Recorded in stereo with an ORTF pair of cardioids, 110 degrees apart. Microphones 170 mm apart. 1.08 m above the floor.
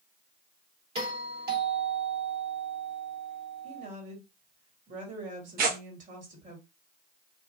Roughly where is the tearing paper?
Ahead right.